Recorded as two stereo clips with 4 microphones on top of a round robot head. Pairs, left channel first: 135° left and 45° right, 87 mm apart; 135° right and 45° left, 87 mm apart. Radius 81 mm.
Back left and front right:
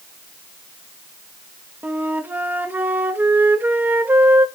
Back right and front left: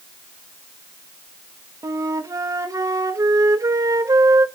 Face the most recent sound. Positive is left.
turn(degrees=15)